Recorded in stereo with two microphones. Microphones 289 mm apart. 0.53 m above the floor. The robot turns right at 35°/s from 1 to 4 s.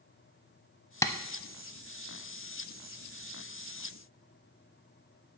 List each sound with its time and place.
1.0 s tapping: 10° left (ahead or behind), 0.6 m; by 1.1 s 15° left (ahead or behind), 0.6 m